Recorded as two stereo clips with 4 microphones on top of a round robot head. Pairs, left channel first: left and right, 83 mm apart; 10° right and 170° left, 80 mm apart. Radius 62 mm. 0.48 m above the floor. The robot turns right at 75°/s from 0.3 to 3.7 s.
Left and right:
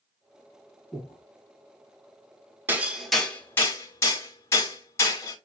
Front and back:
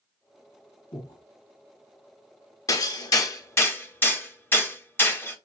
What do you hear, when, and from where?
0.9 s breathing: 15° left, 2.5 m; by 1.2 s 35° left, 2.5 m
2.7 s hammering: 30° right, 1.1 m; by 5.3 s 45° left, 1.1 m